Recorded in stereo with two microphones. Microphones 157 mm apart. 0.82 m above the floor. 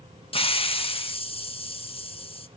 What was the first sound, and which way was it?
A hiss, 35° left (ahead or behind).